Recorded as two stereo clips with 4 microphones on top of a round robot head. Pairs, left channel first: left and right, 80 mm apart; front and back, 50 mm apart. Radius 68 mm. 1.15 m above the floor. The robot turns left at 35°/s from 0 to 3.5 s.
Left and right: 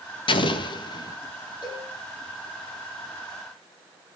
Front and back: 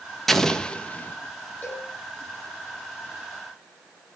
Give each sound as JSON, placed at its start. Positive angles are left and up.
{"t": 0.3, "sound": "an explosion", "azimuth_deg": 85, "distance_m": 1.8}
{"t": 1.6, "sound": "a cowbell", "azimuth_deg": 55, "distance_m": 8.0}